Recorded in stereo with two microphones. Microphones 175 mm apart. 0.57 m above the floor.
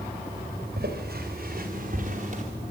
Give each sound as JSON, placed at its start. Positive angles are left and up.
{"t": 0.8, "sound": "footsteps", "side_deg": -60, "distance_m": 4.0}